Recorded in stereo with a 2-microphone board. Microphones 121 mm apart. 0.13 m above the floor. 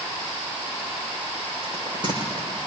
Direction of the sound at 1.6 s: 40° right (ahead or behind).